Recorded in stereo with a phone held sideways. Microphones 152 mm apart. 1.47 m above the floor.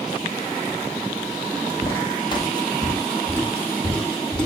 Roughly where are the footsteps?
Left.